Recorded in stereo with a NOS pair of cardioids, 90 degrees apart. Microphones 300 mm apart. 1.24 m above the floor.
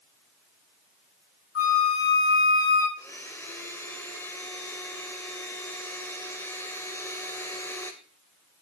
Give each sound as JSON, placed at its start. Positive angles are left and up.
{"t": 1.6, "sound": "a flute", "azimuth_deg": 45, "distance_m": 7.5}
{"t": 3.0, "sound": "a blender", "azimuth_deg": 10, "distance_m": 2.5}